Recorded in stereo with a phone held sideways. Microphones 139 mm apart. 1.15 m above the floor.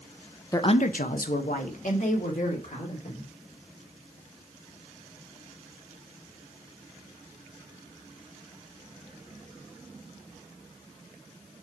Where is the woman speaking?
20° left (ahead or behind), 0.6 m; by 3.3 s 60° left (ahead or behind), 3.5 m.